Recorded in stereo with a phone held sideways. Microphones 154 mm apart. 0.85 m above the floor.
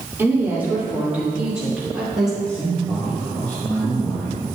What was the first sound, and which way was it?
A woman speaking, 15° right (ahead or behind).